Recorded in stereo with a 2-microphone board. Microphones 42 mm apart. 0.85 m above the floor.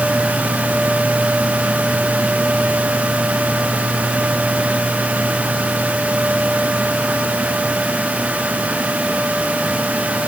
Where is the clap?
No clap in this recording.